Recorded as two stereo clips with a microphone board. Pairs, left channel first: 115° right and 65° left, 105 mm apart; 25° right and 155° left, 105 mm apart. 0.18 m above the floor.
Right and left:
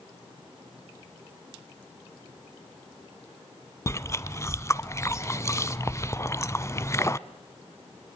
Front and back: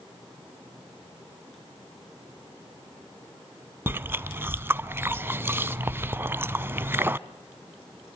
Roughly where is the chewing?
Behind right.